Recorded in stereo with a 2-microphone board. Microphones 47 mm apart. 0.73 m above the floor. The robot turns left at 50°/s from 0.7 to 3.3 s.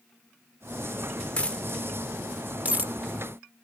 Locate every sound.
1.4 s a dropped coin: 25° left (ahead or behind), 0.6 m; by 2.9 s 45° right (ahead or behind), 0.6 m